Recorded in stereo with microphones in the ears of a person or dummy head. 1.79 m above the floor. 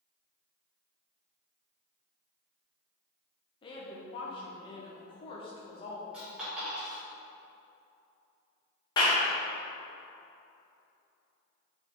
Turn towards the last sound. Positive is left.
turn(degrees=25)  # may be behind; listen again after turning